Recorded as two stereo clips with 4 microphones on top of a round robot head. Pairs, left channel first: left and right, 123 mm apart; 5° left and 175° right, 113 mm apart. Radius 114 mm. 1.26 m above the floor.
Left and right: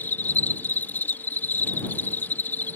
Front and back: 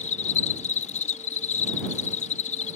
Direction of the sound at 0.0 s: 15° left.